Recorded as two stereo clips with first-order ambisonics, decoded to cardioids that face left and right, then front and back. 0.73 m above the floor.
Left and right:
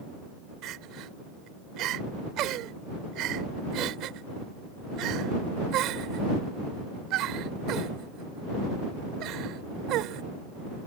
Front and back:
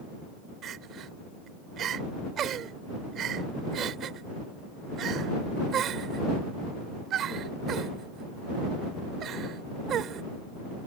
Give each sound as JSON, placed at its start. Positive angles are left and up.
{"t": 0.6, "sound": "crying", "azimuth_deg": -125}